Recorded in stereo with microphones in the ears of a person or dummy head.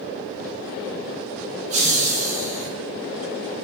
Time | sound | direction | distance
1.7 | laughter | 40° right (ahead or behind) | 0.6 m